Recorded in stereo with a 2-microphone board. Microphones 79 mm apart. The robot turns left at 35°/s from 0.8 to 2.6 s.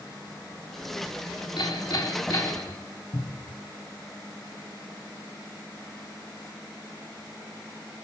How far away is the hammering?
About 4 m.